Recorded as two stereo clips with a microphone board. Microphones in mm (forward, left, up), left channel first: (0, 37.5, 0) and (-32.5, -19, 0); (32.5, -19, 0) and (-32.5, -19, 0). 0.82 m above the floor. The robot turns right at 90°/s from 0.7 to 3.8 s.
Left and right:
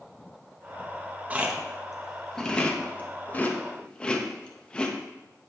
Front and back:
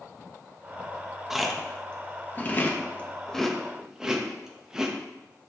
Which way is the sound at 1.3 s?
110° right.